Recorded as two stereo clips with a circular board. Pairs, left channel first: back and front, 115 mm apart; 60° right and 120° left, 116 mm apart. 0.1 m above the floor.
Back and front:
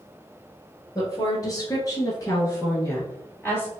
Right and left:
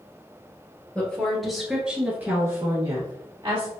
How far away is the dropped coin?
I don't hear a dropped coin.